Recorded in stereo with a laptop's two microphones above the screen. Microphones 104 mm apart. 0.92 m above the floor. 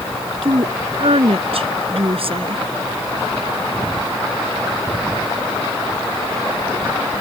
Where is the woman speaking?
70° right (ahead or behind); by 2.6 s 60° right (ahead or behind).